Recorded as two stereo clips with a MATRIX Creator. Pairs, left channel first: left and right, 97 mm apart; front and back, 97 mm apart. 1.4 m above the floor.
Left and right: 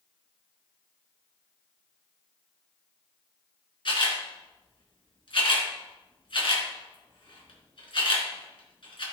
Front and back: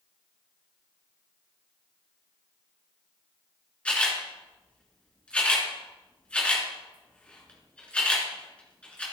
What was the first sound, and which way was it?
A camera shutter, 75° left.